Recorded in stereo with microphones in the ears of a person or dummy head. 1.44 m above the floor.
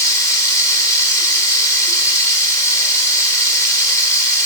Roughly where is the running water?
Centre.